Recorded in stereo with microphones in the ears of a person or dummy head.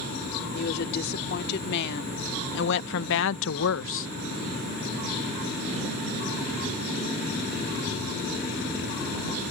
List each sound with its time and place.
0.5 s a woman speaking: 55° left (ahead or behind); by 4.1 s 60° left (ahead or behind)